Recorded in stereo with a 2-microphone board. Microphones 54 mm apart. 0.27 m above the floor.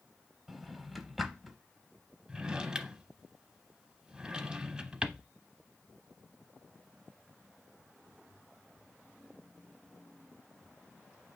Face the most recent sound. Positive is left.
turn(degrees=-15)  # may be behind; listen again after turning